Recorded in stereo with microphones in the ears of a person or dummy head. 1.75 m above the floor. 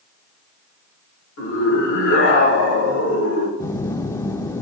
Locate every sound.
1.4 s a scream: 70° left (ahead or behind), 7 m
3.6 s a phone buzzing: 15° left (ahead or behind), 0.7 m